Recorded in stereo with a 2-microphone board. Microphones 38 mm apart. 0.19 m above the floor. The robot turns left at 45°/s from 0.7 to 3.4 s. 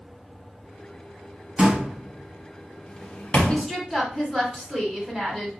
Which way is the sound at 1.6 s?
25° right (ahead or behind).